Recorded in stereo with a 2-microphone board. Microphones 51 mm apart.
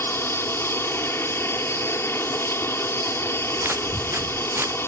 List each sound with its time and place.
0.0 s an aircraft: 50° left (ahead or behind)
3.6 s footsteps: 50° right (ahead or behind); by 4.8 s 45° right (ahead or behind)